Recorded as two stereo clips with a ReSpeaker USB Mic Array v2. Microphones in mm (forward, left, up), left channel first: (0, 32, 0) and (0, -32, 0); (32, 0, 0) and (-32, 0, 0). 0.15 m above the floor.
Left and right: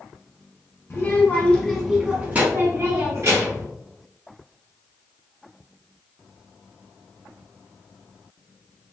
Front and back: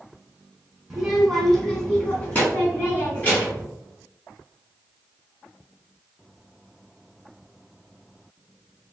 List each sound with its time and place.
0.9 s a child speaking: 100° left, 1.2 m; by 3.7 s 60° right, 2.0 m